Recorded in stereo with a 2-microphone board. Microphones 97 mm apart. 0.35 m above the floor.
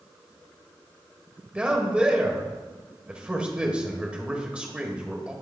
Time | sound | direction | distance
1.6 | a man speaking | 10° right (ahead or behind) | 1.4 m